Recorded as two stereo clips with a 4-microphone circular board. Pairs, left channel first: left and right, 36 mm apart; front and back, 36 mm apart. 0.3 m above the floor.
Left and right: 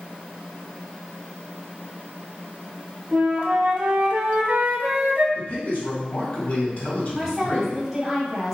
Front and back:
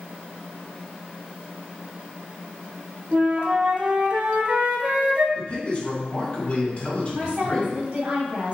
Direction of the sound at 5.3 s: 50° left.